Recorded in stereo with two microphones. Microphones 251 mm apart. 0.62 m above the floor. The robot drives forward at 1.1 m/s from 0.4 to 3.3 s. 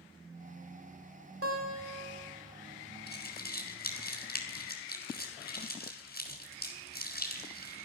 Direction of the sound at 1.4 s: 65° right (ahead or behind).